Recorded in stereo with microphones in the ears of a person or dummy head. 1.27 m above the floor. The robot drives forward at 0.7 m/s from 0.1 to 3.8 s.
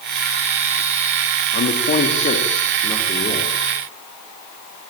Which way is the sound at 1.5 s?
45° left (ahead or behind).